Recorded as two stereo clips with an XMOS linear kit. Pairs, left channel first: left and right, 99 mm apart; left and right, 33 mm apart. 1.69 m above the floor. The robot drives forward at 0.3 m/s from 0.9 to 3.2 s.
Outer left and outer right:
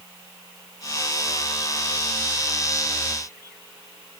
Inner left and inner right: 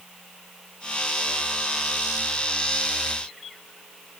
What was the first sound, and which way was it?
Only background noise.